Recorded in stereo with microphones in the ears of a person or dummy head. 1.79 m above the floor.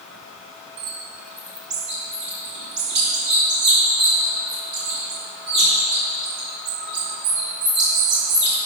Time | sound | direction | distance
0.8 | a bird | 70° right (ahead or behind) | 3.5 m